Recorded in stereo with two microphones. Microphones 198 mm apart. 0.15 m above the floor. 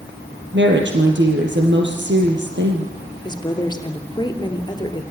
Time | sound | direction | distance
0.5 | a woman speaking | 65° right (ahead or behind) | 3.5 m
3.2 | a woman speaking | 20° left (ahead or behind) | 3 m